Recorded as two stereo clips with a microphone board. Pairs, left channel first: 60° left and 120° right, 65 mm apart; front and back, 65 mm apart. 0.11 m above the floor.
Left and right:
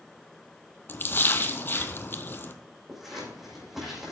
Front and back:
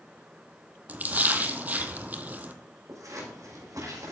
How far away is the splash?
About 0.8 m.